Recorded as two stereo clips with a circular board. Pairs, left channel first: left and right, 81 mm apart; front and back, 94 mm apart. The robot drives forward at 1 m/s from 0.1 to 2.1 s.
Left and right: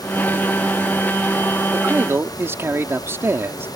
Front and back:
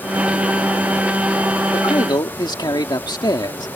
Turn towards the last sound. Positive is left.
turn(degrees=-35)